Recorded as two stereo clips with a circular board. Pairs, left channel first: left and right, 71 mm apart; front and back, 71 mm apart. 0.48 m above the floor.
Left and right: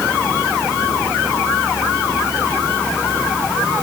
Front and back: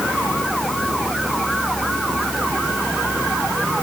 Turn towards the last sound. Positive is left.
No sound to turn to.